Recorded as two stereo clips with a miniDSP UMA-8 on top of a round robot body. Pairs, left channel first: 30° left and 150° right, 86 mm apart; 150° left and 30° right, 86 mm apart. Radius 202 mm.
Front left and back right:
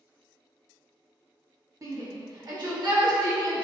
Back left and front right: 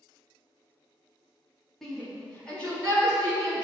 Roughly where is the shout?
Behind right.